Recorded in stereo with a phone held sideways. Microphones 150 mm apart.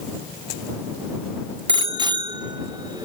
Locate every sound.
1.7 s a bicycle bell: 35° right (ahead or behind); by 3.0 s 30° right (ahead or behind)